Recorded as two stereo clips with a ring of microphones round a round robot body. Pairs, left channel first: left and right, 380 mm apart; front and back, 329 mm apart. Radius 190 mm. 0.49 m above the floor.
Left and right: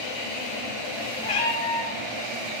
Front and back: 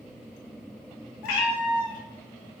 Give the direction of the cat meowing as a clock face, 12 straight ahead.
11 o'clock.